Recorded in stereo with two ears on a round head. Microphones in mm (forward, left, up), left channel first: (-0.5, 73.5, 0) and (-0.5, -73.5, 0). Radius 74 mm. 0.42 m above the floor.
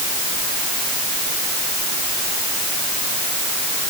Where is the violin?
No violin in this recording.